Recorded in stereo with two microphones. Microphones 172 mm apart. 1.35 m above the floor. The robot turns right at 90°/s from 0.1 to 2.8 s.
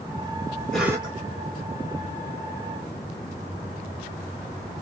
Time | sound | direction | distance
0.7 | a cough | 175° left | 1.9 m